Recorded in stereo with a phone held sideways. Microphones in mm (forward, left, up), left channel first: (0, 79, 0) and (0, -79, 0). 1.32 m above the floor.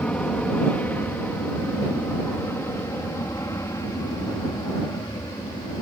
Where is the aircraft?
10° left (ahead or behind); by 5.8 s 25° left (ahead or behind).